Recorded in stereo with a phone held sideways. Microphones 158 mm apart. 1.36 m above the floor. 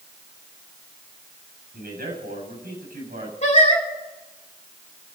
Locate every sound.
1.7 s a man speaking: 85° right, 7.5 m
3.4 s singing: 45° left (ahead or behind), 2.5 m